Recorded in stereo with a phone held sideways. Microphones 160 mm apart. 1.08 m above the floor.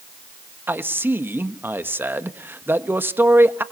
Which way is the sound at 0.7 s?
15° right (ahead or behind).